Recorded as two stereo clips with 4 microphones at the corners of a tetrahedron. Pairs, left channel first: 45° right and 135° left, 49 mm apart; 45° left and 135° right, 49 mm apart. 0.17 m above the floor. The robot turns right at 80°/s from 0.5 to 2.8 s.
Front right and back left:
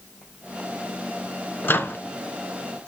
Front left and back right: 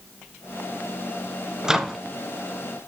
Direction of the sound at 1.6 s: 65° right.